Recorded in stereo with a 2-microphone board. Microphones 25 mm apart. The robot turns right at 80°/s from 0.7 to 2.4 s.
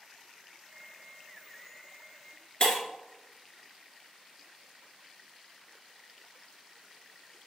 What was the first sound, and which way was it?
Breaking glass, 35° left (ahead or behind).